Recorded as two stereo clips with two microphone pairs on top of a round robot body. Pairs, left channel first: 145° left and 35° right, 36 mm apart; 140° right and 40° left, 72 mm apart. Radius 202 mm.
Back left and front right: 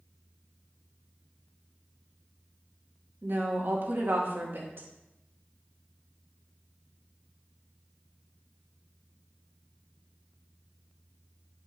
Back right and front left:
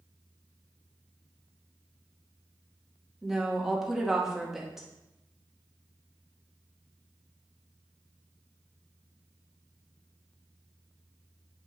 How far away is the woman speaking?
About 2.0 m.